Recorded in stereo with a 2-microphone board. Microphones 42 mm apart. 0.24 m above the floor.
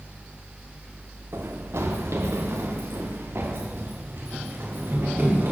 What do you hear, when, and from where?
1.3 s running footsteps: 80° right, 2 m; by 5.5 s 60° right (ahead or behind), 4.5 m